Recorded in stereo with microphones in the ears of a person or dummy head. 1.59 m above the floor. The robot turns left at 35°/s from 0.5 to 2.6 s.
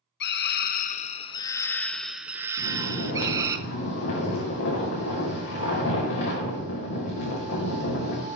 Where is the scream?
60° left, 0.9 m; by 3.6 s 15° right, 0.9 m.